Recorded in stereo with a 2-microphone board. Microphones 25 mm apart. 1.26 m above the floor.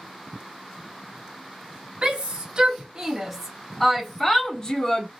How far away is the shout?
About 1.4 m.